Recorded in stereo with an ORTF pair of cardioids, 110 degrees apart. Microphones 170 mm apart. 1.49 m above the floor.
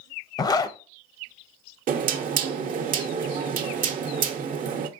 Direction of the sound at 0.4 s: 25° left.